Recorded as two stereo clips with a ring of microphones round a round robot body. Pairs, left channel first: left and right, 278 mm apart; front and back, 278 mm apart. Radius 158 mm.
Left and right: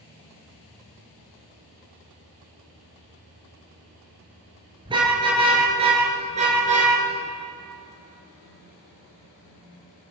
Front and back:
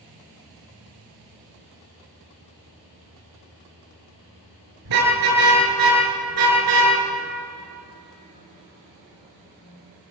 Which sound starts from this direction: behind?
A car horn, at 4.8 s.